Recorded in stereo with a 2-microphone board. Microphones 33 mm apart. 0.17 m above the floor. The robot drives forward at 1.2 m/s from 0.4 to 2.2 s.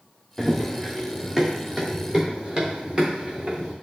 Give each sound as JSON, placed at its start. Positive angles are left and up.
{"t": 0.4, "sound": "running footsteps", "side_deg": 5, "distance_m": 1.5}